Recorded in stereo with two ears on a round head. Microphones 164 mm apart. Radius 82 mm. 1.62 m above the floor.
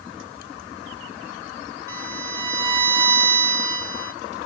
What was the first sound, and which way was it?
A violin, 20° right (ahead or behind).